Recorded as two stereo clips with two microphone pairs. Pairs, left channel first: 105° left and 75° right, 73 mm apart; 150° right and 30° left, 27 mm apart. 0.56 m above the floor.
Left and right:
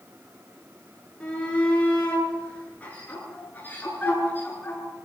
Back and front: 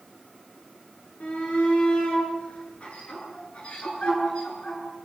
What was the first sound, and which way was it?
A shout, 175° right.